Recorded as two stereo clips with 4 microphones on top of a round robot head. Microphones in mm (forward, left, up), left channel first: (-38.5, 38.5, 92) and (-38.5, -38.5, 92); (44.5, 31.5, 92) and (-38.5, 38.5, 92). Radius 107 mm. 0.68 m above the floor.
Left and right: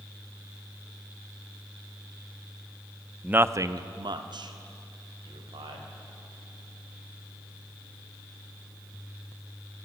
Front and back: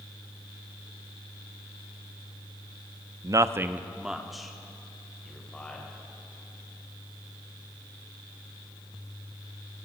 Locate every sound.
3.2 s a man speaking: 160° right, 0.8 m; by 5.9 s 85° right, 3.5 m